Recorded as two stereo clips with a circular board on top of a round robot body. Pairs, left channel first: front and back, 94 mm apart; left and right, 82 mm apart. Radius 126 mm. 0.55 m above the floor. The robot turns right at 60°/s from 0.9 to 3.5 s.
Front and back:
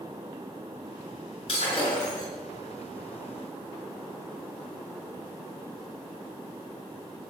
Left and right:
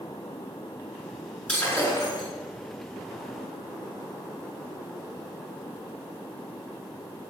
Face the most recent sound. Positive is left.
turn(degrees=135)